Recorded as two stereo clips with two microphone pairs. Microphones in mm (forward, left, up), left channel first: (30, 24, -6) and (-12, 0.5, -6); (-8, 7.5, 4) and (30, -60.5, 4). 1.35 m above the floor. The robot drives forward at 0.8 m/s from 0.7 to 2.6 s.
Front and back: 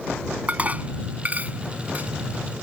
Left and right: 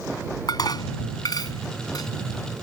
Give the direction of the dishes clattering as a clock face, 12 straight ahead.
7 o'clock.